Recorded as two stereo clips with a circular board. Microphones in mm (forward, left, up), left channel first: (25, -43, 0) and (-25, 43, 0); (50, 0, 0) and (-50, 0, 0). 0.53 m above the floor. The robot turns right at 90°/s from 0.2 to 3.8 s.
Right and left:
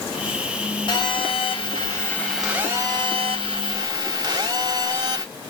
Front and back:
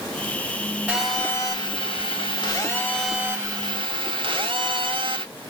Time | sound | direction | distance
0.9 | a phone buzzing | 105° right | 3 m